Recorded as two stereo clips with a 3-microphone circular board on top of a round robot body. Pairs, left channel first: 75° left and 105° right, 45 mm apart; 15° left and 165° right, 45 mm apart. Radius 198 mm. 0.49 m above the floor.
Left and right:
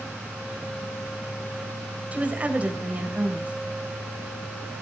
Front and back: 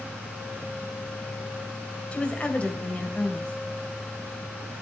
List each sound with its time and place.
2.1 s a woman speaking: 45° right, 3 m